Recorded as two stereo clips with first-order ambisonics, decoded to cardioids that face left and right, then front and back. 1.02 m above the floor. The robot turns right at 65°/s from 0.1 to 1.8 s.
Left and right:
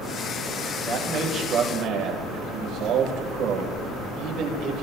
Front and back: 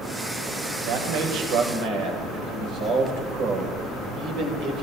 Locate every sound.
0.8 s a man speaking: 160° left, 4.5 m; by 4.8 s 135° right, 4.5 m